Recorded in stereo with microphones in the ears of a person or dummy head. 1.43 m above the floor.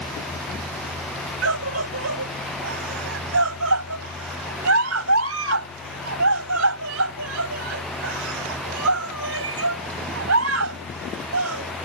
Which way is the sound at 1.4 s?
90° right.